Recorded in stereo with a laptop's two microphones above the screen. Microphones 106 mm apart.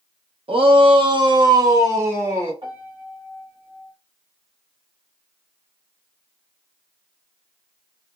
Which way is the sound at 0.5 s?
65° right (ahead or behind).